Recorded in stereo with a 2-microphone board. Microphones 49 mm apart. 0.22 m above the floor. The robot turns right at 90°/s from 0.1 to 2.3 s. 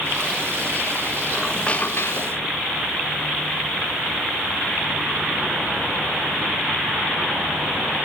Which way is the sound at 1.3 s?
10° right.